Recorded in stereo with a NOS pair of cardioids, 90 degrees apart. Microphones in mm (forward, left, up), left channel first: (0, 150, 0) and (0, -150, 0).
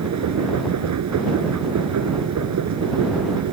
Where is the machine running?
60° right.